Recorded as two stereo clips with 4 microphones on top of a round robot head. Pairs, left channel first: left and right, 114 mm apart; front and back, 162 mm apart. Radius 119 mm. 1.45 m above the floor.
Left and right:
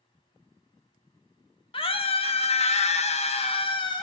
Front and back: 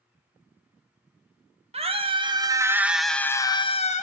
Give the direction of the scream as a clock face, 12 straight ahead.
8 o'clock.